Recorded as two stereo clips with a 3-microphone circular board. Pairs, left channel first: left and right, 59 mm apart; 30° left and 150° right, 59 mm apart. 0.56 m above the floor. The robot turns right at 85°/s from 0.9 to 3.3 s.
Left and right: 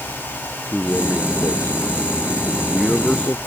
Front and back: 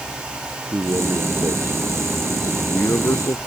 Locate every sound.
0.7 s a man speaking: 175° right; by 3.4 s 25° left